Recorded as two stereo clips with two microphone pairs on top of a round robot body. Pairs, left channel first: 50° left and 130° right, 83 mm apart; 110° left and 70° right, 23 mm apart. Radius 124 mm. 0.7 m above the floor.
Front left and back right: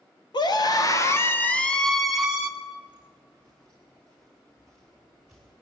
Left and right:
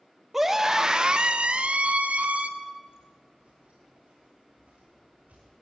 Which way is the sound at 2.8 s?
20° right.